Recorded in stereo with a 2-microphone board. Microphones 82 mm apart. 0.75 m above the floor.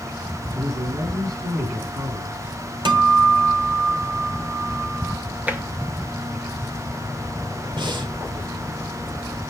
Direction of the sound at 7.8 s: 75° right (ahead or behind).